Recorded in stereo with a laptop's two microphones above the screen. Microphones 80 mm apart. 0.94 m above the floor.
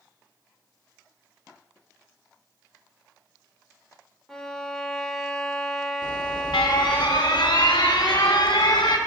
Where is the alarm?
70° left (ahead or behind), 0.7 m.